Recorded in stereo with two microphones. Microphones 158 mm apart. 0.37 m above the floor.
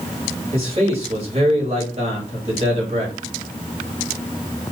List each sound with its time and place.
0.5 s a man speaking: 40° right (ahead or behind), 2.0 m